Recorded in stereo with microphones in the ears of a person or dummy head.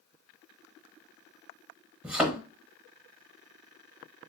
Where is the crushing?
No crushing in this recording.